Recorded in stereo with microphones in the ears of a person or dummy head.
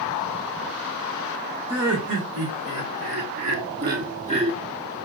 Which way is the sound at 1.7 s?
70° right (ahead or behind).